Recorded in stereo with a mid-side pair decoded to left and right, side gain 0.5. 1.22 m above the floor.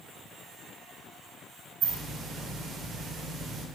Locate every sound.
1.8 s a hiss: 55° right, 2 m